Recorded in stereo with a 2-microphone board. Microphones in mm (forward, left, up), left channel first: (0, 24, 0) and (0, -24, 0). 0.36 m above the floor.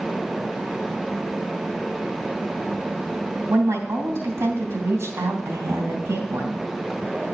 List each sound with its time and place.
3.5 s a woman speaking: 65° right (ahead or behind), 3 m